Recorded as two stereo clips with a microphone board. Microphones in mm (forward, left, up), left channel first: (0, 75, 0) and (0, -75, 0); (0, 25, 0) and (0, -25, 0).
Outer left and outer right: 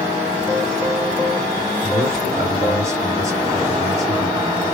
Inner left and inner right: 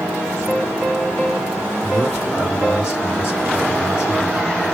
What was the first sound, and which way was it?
A man speaking, 20° right (ahead or behind).